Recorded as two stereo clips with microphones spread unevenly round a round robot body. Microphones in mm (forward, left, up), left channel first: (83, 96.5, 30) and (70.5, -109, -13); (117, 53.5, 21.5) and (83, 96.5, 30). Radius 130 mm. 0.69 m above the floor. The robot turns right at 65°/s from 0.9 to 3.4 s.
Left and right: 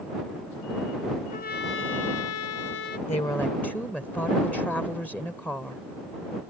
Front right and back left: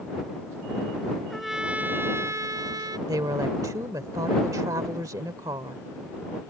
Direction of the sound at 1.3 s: 35° left.